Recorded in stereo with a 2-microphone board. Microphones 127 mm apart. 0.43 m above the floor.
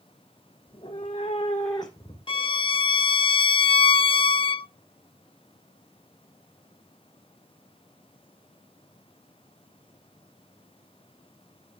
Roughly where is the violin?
Left.